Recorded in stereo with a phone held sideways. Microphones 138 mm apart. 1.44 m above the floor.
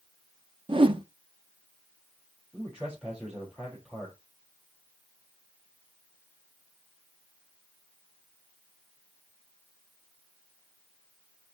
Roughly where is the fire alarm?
No fire alarm in this recording.